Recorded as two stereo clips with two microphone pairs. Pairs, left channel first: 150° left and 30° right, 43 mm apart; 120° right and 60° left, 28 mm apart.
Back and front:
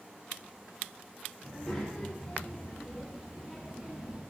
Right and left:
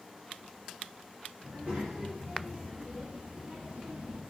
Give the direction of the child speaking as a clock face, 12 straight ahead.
10 o'clock.